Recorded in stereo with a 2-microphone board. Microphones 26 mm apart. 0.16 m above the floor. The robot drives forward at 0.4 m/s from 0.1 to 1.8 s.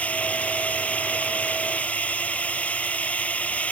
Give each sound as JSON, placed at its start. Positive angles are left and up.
{"t": 0.0, "sound": "a drone", "side_deg": 70}